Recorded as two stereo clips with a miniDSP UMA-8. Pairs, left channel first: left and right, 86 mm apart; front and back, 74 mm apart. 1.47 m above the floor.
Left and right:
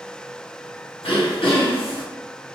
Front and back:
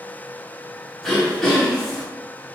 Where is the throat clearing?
85° left, 0.9 m.